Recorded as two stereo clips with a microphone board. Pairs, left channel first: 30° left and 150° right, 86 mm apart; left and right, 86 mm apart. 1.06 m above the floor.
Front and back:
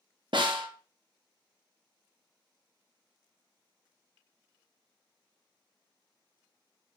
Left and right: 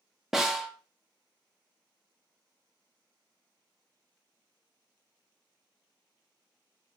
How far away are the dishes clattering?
I don't hear dishes clattering.